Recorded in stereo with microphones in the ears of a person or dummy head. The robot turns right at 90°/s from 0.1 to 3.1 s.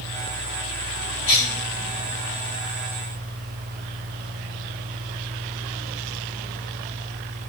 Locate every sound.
1.3 s a cough: 35° left (ahead or behind), 1.9 m; by 1.6 s 5° left (ahead or behind), 1.9 m